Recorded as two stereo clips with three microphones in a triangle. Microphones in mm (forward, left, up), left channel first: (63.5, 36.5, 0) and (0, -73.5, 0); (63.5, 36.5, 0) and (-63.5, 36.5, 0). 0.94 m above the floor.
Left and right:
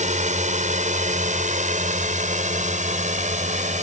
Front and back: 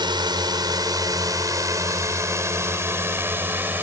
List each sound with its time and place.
0.0 s a drone: 125° right; by 3.8 s 105° right